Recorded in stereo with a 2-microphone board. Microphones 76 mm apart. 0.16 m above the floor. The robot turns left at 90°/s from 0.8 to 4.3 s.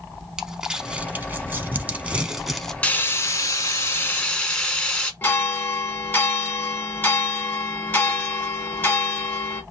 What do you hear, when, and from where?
0.4 s crumpling: 10° right (ahead or behind), 0.6 m; by 2.7 s 5° left (ahead or behind), 0.6 m
2.8 s frying: 150° left, 0.8 m; by 5.1 s 20° left, 0.8 m
5.2 s a bell: 25° left (ahead or behind), 1.1 m